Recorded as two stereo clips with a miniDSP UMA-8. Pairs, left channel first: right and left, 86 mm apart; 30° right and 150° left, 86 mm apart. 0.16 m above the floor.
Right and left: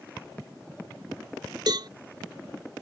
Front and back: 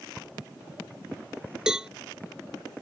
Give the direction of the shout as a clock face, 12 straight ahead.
No shout in this recording.